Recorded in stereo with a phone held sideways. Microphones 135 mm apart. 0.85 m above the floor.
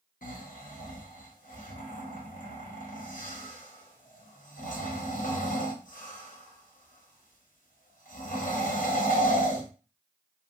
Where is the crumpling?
No crumpling in this recording.